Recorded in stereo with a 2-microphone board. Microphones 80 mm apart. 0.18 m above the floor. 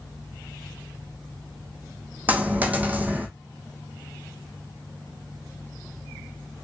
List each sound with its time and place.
2.3 s a dropped coin: 20° right (ahead or behind), 0.7 m